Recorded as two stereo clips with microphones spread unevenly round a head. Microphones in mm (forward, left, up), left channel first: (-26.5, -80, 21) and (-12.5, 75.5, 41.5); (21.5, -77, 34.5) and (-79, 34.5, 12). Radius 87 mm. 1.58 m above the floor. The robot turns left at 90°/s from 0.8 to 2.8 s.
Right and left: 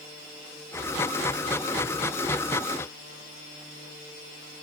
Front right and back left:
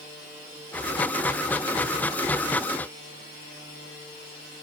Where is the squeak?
I don't hear a squeak.